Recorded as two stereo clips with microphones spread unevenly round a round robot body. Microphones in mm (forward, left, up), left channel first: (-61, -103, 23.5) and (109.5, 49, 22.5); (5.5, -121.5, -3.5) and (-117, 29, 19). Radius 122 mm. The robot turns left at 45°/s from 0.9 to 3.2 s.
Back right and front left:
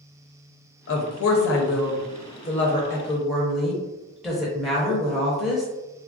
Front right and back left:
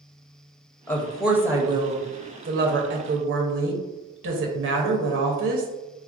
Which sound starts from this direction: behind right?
A woman speaking, at 0.9 s.